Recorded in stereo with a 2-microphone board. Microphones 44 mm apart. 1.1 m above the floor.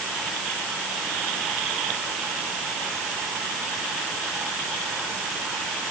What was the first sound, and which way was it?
Only background noise.